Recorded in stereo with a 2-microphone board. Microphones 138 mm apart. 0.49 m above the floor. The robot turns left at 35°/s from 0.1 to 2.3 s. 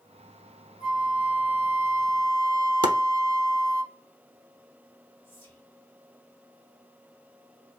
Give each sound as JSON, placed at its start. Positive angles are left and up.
{"t": 0.8, "sound": "a flute", "azimuth_deg": 80, "distance_m": 1.3}
{"t": 2.8, "sound": "chopping", "side_deg": -40, "distance_m": 0.6}
{"t": 5.2, "sound": "whispering", "side_deg": 20, "distance_m": 1.6}